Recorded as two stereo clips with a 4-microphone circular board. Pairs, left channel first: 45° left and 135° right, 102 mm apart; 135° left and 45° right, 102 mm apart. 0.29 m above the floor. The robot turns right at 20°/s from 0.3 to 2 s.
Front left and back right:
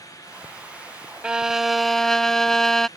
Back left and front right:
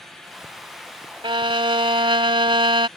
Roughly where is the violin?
Ahead right.